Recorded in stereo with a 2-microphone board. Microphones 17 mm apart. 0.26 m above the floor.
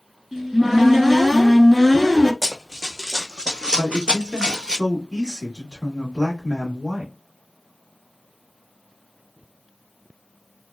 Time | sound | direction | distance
0.3 | a cupboard door | 25° right (ahead or behind) | 1.0 m
2.4 | running footsteps | 5° right (ahead or behind) | 0.9 m
3.8 | a man speaking | 40° right (ahead or behind) | 1.2 m